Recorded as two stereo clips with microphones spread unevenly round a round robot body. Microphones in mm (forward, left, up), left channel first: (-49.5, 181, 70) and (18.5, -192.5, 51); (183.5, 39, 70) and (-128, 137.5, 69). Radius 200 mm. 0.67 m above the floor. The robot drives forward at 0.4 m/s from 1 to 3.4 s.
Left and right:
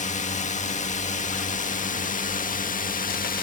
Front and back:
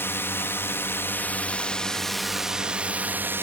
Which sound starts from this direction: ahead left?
A drone, at 0.0 s.